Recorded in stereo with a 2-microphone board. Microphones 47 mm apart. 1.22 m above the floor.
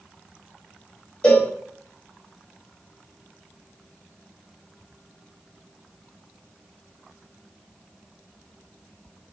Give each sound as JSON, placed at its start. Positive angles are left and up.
{"t": 1.2, "sound": "a cowbell", "side_deg": 25, "distance_m": 1.5}